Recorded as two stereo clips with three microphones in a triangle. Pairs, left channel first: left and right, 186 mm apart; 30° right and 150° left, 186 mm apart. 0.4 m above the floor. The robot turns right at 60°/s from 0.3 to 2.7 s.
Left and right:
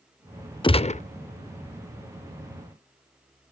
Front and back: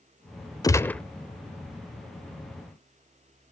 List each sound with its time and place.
0.6 s a gunshot: 30° left, 0.5 m; by 1.0 s 55° left, 0.5 m